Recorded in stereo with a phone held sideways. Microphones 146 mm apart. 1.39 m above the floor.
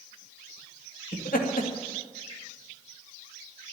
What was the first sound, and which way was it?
Laughter, 80° left.